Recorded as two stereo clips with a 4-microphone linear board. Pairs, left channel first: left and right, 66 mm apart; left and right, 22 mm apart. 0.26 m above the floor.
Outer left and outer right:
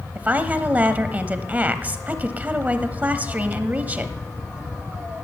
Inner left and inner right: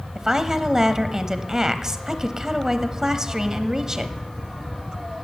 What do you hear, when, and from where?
0.1 s a woman speaking: 25° right (ahead or behind), 1.0 m